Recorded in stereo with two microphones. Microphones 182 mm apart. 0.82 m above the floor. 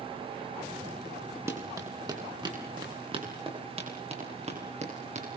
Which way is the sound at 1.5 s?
15° right (ahead or behind).